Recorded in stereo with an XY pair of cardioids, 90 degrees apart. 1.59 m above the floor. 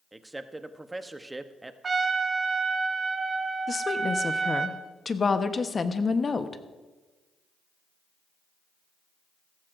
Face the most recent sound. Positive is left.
turn(degrees=35)